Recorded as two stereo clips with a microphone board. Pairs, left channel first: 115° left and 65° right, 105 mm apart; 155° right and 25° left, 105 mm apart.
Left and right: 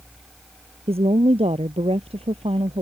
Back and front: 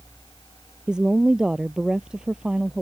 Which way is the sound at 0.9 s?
60° right.